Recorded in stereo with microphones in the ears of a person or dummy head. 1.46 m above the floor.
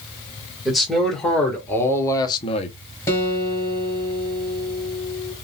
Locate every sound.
0.7 s a man speaking: 5° right (ahead or behind), 2 m; by 2.8 s 40° left (ahead or behind), 0.8 m
3.1 s a guitar: 10° left (ahead or behind), 1.7 m